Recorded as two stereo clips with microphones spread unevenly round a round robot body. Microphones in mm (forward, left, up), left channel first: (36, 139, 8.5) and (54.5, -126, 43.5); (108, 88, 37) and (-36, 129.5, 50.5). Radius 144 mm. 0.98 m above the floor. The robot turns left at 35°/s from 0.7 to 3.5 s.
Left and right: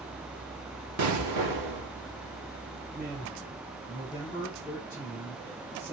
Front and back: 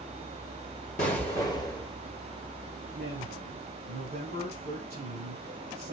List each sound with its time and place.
1.0 s an explosion: 65° right, 2.5 m; by 1.9 s 95° right, 2.5 m
2.9 s a man speaking: 165° right, 7.5 m; by 5.9 s 175° left, 7.5 m